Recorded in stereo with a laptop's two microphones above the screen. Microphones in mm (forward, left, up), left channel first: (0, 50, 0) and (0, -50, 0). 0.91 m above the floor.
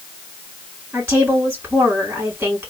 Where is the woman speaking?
20° right (ahead or behind), 2 m.